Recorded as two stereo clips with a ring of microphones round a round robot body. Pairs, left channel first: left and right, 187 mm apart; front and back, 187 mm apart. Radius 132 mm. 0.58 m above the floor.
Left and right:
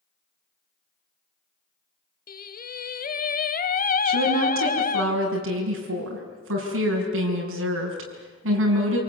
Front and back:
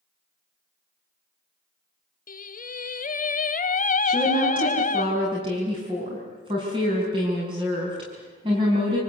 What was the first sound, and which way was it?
Singing, 45° left.